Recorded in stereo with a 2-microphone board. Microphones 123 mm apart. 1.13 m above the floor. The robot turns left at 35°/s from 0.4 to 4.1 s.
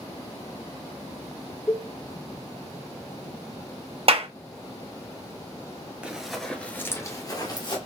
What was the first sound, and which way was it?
A cowbell, 10° left (ahead or behind).